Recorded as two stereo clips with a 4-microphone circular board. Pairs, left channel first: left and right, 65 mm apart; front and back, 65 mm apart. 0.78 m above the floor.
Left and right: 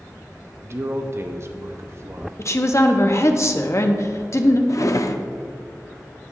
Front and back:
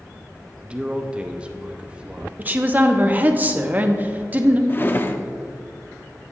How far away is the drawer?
About 0.5 m.